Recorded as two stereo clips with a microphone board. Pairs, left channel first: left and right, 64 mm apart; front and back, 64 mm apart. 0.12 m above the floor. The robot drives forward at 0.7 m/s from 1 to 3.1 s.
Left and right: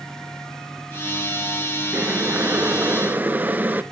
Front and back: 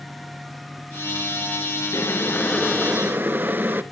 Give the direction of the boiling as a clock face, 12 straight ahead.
1 o'clock.